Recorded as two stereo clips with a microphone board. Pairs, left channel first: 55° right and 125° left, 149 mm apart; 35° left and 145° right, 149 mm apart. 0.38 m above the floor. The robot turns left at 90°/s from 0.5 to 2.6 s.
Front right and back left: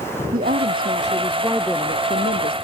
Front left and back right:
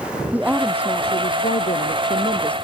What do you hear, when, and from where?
0.3 s a woman speaking: 135° left; by 2.5 s 50° right